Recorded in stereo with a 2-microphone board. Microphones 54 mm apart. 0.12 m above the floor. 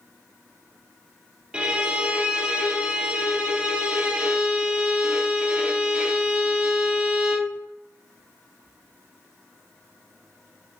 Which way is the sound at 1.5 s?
15° right (ahead or behind).